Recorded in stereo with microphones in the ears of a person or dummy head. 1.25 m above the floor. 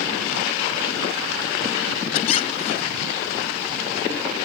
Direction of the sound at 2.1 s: 35° left (ahead or behind).